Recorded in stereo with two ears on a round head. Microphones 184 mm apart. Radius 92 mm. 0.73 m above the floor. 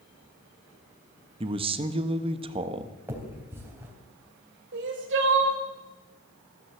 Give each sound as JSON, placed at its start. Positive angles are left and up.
{"t": 1.4, "sound": "a man speaking", "side_deg": -25, "distance_m": 0.9}
{"t": 3.1, "sound": "a finger snap", "side_deg": -15, "distance_m": 3.0}
{"t": 4.7, "sound": "crying", "side_deg": -60, "distance_m": 2.5}